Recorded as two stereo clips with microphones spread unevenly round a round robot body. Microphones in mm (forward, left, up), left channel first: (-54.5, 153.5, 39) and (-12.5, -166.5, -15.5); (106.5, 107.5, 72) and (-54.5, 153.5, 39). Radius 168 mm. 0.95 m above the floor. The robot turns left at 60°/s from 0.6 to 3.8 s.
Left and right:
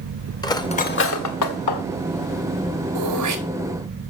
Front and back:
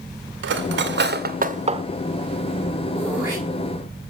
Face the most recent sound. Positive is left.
turn(degrees=-145)